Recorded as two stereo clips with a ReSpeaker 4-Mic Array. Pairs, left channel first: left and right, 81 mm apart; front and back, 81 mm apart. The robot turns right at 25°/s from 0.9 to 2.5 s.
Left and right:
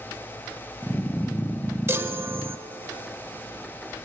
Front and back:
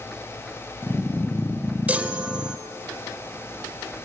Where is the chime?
120° right, 0.5 m; by 2.6 s 105° right, 0.5 m.